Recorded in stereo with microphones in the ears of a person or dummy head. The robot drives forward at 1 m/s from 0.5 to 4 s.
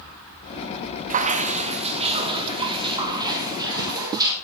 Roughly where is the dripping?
Right.